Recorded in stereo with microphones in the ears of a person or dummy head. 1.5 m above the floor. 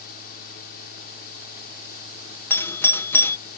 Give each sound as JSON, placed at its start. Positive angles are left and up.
{"t": 0.0, "sound": "a fan", "side_deg": 50}
{"t": 2.5, "sound": "a doorbell", "side_deg": 15}